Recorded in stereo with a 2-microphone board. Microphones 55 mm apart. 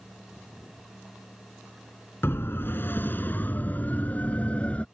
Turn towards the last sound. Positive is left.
turn(degrees=25)  # may be behind; listen again after turning